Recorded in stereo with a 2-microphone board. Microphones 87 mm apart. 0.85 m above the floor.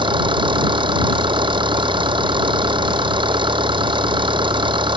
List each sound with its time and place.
0.0 s an engine running: 70° right (ahead or behind)